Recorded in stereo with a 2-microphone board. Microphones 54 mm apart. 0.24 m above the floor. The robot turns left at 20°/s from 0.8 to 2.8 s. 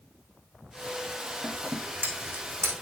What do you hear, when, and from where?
1.4 s scissors: 25° right (ahead or behind), 4 m; by 2.7 s 50° right (ahead or behind), 4 m